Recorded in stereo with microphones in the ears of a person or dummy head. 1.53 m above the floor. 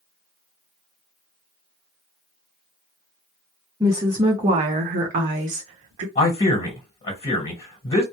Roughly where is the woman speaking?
Centre.